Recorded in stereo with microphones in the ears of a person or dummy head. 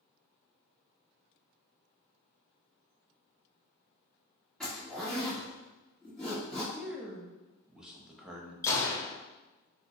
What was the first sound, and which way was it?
A zipper, 5° left (ahead or behind).